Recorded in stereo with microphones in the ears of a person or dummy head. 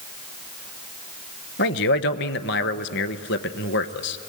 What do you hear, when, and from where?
1.6 s a man speaking: 60° left (ahead or behind), 1.0 m